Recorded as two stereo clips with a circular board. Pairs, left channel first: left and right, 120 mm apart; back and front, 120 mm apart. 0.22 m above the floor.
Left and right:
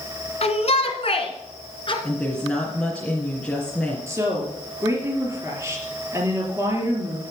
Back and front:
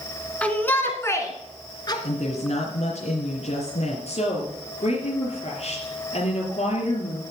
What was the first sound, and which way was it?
A shout, 100° left.